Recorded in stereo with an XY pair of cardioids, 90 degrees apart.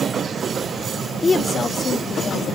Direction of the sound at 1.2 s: 35° left.